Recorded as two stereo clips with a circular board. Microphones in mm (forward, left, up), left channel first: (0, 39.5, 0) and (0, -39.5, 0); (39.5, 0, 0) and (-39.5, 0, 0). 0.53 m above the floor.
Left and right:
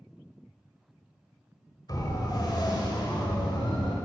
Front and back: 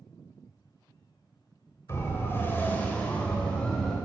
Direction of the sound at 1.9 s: 55° left.